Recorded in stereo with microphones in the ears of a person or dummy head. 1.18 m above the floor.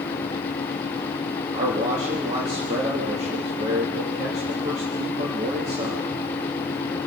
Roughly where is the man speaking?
Right.